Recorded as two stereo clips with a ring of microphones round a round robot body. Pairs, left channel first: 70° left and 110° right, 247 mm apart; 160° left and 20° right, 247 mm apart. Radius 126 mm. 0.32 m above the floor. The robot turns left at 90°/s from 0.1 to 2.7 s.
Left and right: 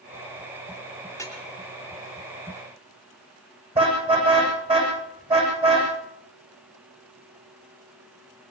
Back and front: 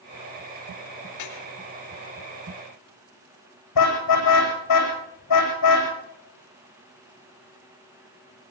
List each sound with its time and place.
1.1 s dripping: 155° left, 4 m; by 1.4 s 130° left, 4 m
3.8 s a car horn: straight behind, 8 m